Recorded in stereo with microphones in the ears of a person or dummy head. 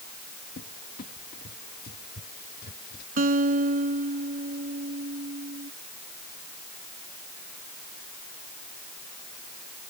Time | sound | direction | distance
0.6 | a cupboard door | 50° left (ahead or behind) | ?
3.2 | a guitar | 40° right (ahead or behind) | ?